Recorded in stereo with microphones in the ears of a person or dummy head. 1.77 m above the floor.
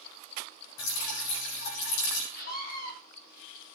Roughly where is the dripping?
Left.